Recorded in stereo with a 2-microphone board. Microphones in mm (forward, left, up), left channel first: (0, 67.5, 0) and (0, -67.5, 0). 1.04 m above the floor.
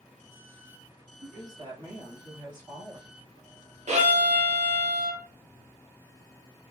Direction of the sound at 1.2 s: 30° right (ahead or behind).